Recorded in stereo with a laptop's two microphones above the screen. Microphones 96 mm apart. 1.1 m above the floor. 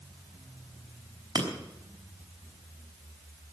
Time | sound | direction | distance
1.4 | breaking glass | 45° right (ahead or behind) | 3.5 m